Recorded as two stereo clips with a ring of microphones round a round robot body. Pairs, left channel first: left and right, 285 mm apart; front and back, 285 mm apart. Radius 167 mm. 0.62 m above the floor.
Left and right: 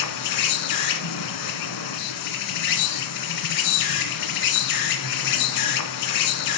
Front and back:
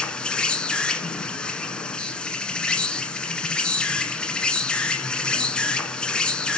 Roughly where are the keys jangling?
I don't hear keys jangling.